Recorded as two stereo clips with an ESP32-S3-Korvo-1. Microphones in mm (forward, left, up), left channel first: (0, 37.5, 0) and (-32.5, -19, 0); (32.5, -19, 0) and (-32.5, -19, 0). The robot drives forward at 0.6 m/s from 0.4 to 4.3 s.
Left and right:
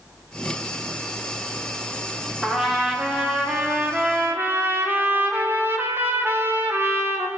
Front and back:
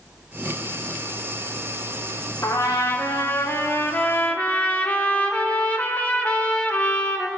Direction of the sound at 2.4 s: 35° right.